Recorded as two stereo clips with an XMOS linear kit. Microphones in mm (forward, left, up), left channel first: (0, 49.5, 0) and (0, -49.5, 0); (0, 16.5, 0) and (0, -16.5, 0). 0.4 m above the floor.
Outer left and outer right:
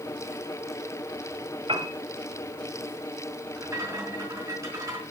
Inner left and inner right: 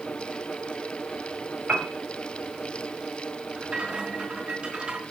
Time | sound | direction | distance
1.7 | a piano | 60° right (ahead or behind) | 2.5 m
3.6 | a rattle | 30° right (ahead or behind) | 4 m